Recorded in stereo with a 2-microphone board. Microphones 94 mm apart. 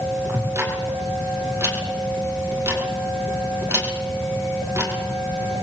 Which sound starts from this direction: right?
Ticking, at 0.3 s.